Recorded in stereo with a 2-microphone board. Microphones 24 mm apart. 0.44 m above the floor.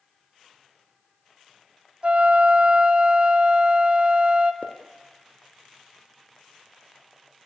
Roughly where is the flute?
Right.